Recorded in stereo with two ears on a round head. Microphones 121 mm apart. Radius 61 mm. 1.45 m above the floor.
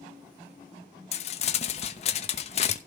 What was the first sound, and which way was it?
Crumpling, 50° left (ahead or behind).